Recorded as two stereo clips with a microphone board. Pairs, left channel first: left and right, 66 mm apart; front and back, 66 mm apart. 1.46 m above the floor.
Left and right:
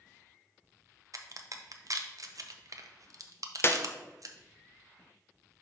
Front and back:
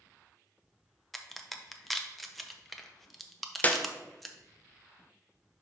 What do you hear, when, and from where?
1.1 s a crack: 90° right, 0.6 m
3.6 s a clap: 55° left, 0.5 m